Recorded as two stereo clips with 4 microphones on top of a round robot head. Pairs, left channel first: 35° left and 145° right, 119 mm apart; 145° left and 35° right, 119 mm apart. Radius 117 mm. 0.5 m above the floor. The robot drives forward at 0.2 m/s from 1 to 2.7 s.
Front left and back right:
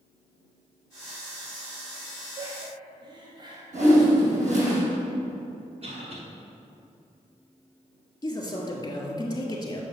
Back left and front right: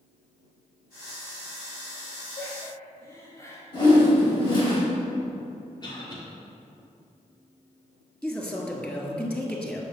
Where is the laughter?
165° right, 1.1 m.